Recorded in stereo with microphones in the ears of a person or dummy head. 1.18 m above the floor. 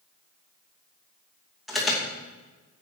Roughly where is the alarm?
Centre.